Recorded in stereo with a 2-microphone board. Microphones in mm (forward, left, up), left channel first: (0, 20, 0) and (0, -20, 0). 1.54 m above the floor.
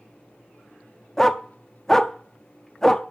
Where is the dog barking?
10° left (ahead or behind), 1.0 m.